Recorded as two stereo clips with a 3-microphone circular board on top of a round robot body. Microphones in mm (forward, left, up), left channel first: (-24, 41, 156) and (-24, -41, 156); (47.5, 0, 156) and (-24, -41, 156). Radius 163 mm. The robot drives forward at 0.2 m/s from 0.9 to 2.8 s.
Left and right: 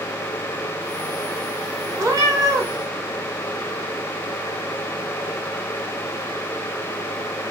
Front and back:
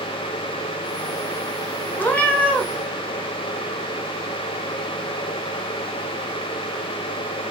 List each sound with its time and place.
2.0 s a cat meowing: 40° right, 0.9 m; by 2.7 s 45° right, 0.8 m